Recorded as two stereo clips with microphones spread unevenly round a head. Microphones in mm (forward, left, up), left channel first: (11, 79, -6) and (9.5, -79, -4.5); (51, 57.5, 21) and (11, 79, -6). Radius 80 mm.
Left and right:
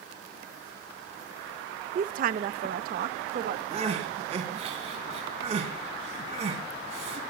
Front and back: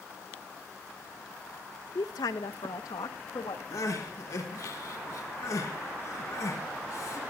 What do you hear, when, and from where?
1.9 s a woman speaking: 50° right, 0.6 m; by 3.6 s 55° right, 1.5 m
3.7 s crying: 40° right, 3.5 m